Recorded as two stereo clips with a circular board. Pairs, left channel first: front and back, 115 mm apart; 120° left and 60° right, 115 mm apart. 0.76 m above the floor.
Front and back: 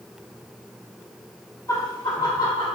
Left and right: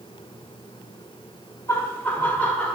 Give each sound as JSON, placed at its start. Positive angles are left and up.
{"t": 1.7, "sound": "laughter", "azimuth_deg": 55, "distance_m": 1.4}